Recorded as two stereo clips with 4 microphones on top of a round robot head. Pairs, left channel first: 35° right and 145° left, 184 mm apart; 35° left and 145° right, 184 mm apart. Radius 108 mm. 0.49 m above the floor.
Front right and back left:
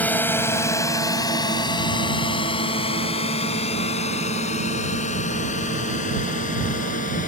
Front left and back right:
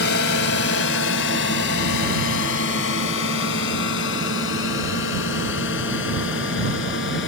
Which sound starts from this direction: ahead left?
A drone, at 0.0 s.